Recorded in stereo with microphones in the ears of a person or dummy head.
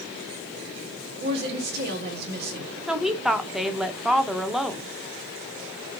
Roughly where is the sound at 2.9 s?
Centre.